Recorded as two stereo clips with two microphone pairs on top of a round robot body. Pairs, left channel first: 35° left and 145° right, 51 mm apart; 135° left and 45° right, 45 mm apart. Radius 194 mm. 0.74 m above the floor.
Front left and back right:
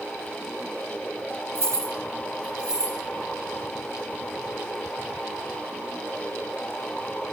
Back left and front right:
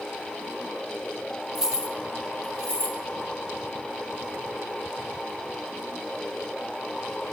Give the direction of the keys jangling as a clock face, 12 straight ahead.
4 o'clock.